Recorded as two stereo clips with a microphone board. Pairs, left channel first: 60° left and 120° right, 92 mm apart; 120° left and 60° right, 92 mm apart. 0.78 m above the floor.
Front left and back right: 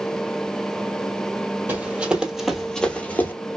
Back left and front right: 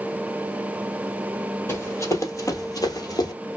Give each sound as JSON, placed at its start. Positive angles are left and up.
{"t": 1.7, "sound": "running footsteps", "azimuth_deg": 175, "distance_m": 1.2}